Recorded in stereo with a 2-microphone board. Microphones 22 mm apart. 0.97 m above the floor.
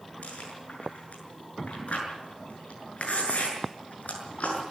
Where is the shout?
No shout in this recording.